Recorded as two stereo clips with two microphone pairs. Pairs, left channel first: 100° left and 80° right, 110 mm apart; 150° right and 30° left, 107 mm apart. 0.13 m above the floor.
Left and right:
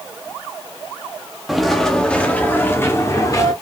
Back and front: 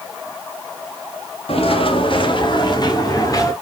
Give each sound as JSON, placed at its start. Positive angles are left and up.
{"t": 1.5, "sound": "footsteps", "azimuth_deg": -170, "distance_m": 1.5}